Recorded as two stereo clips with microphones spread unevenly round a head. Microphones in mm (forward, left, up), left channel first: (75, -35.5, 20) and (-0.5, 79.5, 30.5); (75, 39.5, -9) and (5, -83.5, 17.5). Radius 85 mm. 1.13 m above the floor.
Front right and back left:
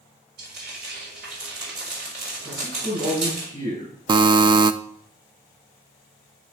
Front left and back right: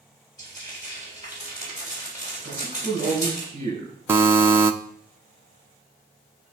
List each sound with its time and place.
0.4 s frying: 130° left, 4 m
2.4 s a man speaking: straight behind, 6 m
4.1 s a buzzer: 160° left, 0.5 m